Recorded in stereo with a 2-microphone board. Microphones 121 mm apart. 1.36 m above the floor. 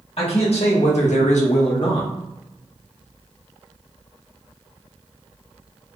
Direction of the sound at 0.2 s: 55° left (ahead or behind).